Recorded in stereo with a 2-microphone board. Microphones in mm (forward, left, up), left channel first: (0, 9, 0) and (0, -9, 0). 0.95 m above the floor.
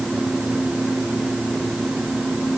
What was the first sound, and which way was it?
Only background noise.